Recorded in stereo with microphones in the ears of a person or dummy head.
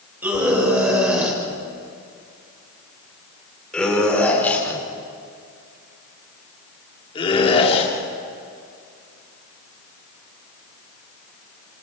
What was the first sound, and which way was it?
A scream, 10° right (ahead or behind).